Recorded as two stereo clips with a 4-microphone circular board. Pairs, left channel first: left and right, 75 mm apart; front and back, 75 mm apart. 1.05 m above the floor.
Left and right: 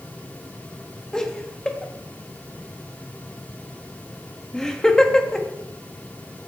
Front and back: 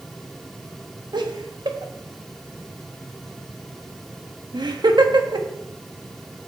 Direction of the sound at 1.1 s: 170° left.